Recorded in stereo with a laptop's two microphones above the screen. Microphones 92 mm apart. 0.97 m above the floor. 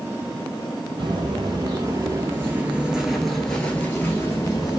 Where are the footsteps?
50° right (ahead or behind), 1.4 m; by 4.8 s 40° left (ahead or behind), 1.2 m.